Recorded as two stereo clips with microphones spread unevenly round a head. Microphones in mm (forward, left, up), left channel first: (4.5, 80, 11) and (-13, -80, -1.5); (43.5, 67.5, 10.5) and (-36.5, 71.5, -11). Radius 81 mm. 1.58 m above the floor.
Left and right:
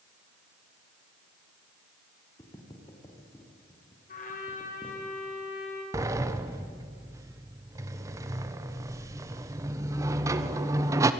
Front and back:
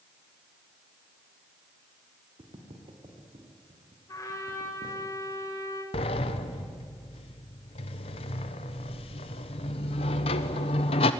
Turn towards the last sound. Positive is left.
turn(degrees=-25)